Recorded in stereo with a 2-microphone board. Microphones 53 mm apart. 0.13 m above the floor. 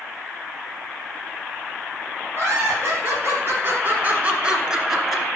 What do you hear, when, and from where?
2.3 s laughter: 50° right (ahead or behind), 3 m; by 5.2 s 5° left (ahead or behind), 2 m